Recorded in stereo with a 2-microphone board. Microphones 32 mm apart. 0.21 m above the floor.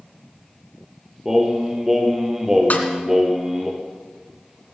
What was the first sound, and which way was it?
Singing, 15° right (ahead or behind).